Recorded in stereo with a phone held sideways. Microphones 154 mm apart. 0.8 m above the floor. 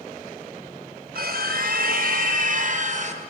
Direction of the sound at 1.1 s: 75° right (ahead or behind).